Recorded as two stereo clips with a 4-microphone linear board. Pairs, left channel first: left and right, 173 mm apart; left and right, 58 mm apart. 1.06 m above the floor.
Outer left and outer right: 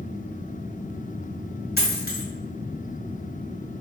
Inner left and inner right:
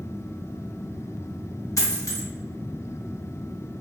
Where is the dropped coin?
65° left (ahead or behind), 1.2 m.